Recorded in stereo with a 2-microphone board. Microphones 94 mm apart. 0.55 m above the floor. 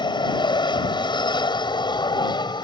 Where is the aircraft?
55° left (ahead or behind); by 2.6 s 50° left (ahead or behind).